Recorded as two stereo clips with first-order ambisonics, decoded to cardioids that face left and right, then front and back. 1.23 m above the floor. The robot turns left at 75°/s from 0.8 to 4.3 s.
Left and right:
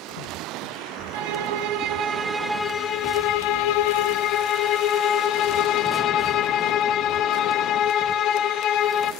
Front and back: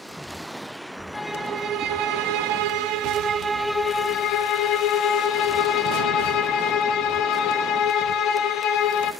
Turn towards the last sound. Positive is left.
turn(degrees=40)